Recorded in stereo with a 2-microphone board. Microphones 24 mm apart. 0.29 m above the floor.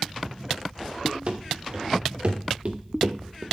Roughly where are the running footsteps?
Right.